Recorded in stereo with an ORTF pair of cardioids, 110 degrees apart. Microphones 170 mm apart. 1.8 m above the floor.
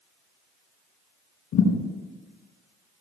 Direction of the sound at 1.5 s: 70° left.